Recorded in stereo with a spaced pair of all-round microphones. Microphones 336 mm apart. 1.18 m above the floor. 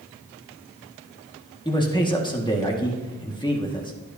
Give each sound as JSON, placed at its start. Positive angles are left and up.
{"t": 1.6, "sound": "a man speaking", "side_deg": 15, "distance_m": 1.7}